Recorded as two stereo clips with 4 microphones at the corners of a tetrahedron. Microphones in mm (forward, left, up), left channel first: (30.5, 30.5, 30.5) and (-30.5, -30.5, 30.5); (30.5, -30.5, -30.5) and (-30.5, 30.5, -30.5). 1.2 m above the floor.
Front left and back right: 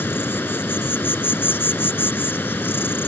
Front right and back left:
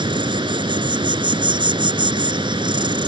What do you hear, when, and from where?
0.0 s an insect: 110° left